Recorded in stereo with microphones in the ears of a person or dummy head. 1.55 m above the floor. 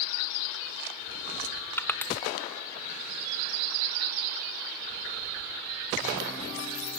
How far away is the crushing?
About 0.6 m.